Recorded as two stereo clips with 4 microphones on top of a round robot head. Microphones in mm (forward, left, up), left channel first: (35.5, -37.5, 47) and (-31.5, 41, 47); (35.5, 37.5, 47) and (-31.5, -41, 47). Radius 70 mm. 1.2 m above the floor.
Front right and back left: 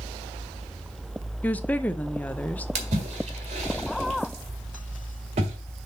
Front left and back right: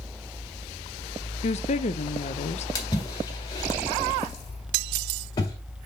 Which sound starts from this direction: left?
A splash, at 2.8 s.